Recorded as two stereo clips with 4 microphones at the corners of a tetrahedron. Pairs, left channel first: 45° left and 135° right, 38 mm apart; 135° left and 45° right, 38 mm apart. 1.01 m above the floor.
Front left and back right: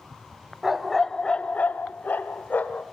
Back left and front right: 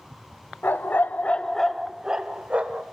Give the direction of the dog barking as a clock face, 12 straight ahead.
7 o'clock.